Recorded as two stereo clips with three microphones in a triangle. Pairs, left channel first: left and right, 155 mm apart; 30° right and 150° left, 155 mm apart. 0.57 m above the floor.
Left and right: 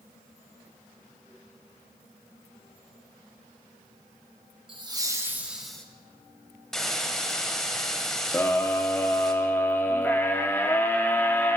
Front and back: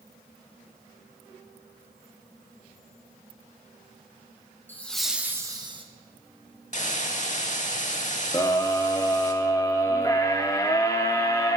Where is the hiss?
5° left, 0.7 m.